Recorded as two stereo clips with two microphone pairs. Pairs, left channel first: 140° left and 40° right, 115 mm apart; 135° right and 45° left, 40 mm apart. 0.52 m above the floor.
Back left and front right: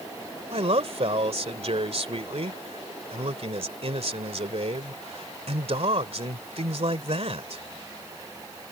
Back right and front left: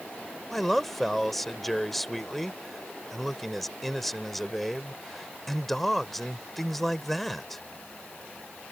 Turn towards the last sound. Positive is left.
turn(degrees=-50)